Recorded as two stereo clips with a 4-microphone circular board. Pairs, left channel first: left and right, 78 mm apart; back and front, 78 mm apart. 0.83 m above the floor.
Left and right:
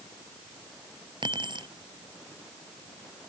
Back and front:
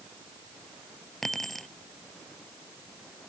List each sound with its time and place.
1.2 s keys jangling: 95° right